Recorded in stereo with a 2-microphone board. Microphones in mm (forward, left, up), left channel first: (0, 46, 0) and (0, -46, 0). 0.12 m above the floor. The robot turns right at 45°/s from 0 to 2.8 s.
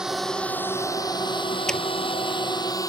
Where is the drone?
5° right (ahead or behind); by 2.9 s 40° left (ahead or behind).